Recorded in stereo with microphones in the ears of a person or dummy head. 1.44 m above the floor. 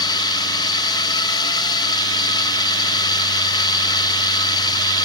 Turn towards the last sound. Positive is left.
turn(degrees=25)  # may be behind; listen again after turning